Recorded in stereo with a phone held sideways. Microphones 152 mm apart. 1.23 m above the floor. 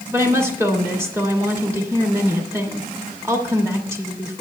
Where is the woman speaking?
20° right (ahead or behind), 2 m.